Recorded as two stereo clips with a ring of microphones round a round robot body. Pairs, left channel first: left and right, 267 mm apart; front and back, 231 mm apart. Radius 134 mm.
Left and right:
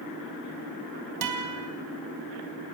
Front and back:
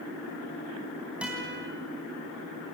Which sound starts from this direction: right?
A guitar, at 1.2 s.